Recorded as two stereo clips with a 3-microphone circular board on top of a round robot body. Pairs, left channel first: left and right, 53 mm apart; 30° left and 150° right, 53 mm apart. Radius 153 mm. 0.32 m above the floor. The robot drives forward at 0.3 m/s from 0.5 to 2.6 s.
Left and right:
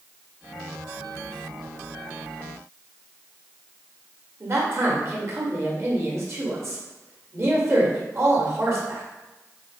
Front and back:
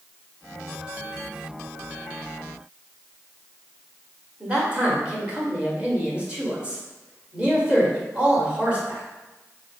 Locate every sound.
4.4 s a man speaking: 85° right, 1.8 m